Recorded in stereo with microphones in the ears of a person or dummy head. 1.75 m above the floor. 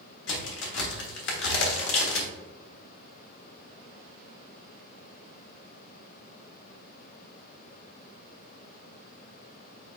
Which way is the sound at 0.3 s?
80° left.